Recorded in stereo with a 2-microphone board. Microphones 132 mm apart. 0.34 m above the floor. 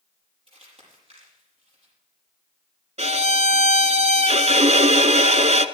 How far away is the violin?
About 0.7 m.